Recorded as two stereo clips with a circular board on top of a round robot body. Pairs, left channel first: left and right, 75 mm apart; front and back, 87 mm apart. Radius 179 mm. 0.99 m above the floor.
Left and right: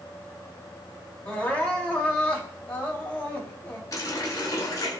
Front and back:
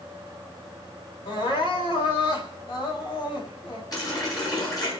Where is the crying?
20° left, 4 m.